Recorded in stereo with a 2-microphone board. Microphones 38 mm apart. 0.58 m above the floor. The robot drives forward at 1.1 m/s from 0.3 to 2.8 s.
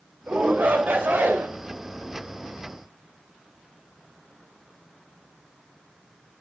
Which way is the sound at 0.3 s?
60° right (ahead or behind).